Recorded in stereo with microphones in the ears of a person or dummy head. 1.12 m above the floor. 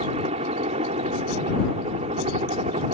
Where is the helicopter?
35° right (ahead or behind); by 3.0 s 30° right (ahead or behind).